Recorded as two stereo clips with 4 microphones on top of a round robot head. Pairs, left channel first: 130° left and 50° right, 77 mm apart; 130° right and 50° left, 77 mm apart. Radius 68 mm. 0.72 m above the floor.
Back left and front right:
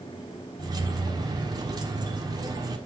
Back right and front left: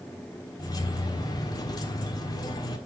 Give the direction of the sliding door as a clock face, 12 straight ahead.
No sliding door in this recording.